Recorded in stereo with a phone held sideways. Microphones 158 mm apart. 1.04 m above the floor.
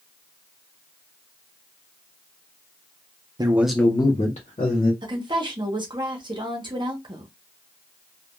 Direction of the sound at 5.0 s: 30° right (ahead or behind).